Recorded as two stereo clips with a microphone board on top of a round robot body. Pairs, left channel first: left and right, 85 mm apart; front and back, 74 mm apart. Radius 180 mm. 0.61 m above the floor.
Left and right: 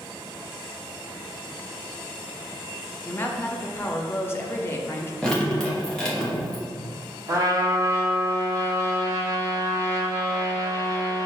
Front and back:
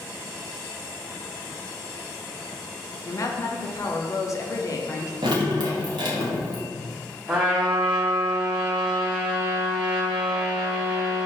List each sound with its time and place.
3.0 s a woman speaking: 35° left, 0.7 m
5.2 s dripping: 170° left, 0.8 m
7.3 s a trumpet: 115° right, 1.4 m